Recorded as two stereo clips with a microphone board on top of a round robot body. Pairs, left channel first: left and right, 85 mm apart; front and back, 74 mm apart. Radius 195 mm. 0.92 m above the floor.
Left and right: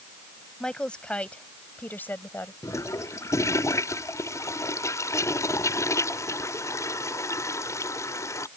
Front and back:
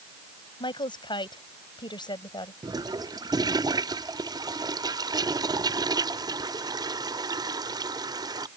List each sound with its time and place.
0.6 s a woman speaking: 10° left; by 2.5 s 25° left
2.6 s a toilet flushing: 145° left